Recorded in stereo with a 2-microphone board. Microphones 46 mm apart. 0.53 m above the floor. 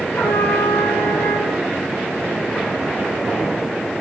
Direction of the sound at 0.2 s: 75° left (ahead or behind).